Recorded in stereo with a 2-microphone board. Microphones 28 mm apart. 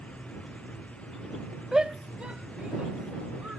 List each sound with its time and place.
1.7 s a shout: 25° right (ahead or behind); by 3.6 s 45° right (ahead or behind)